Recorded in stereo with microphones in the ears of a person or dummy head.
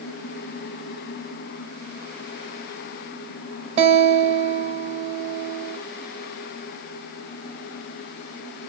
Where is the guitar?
35° right (ahead or behind), 1.3 m.